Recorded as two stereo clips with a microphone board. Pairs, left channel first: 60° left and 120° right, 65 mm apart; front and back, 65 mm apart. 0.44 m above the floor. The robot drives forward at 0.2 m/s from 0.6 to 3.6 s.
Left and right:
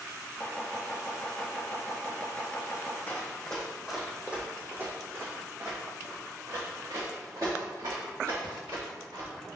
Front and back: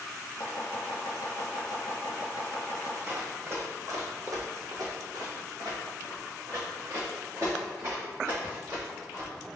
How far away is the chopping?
About 1.4 m.